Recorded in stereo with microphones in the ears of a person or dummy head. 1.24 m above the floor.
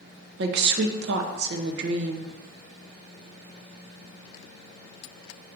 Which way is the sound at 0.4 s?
60° right (ahead or behind).